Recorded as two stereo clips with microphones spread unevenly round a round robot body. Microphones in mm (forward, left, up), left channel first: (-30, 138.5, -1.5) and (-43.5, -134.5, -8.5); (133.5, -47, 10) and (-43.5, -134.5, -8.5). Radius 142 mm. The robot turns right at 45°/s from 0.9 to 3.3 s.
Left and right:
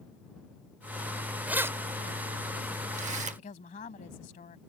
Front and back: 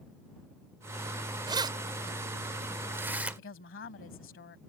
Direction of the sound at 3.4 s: 25° left.